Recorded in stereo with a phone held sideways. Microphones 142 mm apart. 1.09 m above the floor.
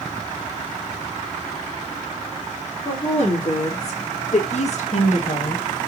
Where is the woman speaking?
50° left (ahead or behind), 2.5 m; by 5.9 s 55° left (ahead or behind), 1.0 m.